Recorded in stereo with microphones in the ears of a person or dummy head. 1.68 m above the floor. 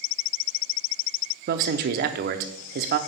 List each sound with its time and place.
1.5 s a man speaking: 55° right (ahead or behind), 0.6 m